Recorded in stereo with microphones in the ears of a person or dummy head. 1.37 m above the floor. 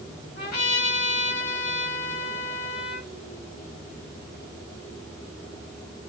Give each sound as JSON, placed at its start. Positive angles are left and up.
{"t": 0.4, "sound": "a trumpet", "side_deg": 55, "distance_m": 2.5}